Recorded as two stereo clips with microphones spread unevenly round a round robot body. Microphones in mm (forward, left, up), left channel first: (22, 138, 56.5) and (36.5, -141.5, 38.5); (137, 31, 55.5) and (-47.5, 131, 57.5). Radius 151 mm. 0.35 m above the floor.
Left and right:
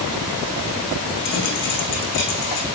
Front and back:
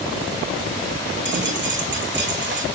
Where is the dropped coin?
120° left, 8.5 m.